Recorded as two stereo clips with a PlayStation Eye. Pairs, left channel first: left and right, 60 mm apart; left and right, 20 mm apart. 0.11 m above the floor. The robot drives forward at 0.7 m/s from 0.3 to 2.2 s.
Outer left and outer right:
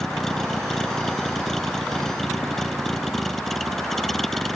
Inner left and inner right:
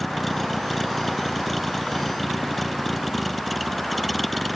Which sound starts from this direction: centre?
A vehicle, at 0.0 s.